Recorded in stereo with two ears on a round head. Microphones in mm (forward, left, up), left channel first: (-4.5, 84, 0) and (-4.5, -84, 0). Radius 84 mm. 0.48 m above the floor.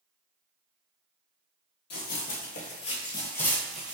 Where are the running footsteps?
60° left (ahead or behind), 0.9 m; by 4.0 s 10° right (ahead or behind), 0.8 m.